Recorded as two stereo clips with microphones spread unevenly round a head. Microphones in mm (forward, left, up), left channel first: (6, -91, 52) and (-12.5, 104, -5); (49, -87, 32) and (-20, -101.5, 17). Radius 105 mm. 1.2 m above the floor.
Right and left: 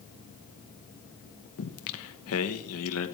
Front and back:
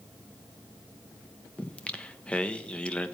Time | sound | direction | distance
1.6 | singing | 65° right | 1.2 m